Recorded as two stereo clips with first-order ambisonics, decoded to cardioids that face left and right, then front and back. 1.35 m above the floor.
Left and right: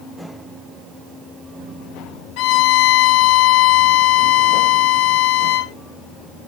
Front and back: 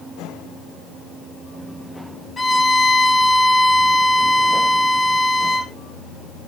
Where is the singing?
I don't hear singing.